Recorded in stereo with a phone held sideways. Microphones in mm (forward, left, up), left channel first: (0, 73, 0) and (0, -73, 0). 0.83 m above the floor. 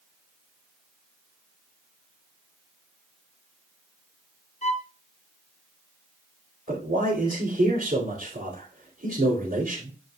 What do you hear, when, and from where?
4.6 s a violin: 50° left (ahead or behind), 0.7 m
6.7 s a man speaking: 75° right (ahead or behind), 3 m